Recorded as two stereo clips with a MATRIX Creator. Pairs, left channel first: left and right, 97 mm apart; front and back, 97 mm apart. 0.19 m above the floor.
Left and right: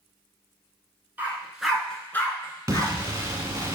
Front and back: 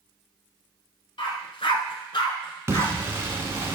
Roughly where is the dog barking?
Ahead.